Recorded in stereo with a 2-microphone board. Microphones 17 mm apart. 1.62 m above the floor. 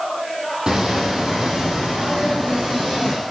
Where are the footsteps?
40° right (ahead or behind), 3.5 m; by 3.1 s 60° right (ahead or behind), 6 m.